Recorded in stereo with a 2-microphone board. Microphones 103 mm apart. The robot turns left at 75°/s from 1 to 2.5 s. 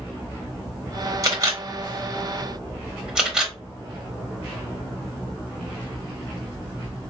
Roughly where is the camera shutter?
Right.